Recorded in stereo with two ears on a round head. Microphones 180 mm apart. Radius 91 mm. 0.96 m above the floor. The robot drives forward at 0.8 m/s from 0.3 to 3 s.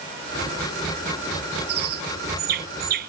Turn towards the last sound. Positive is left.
turn(degrees=-50)  # may be behind; listen again after turning